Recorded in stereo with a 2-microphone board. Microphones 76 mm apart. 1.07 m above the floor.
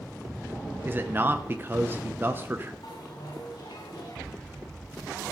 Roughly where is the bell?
Left.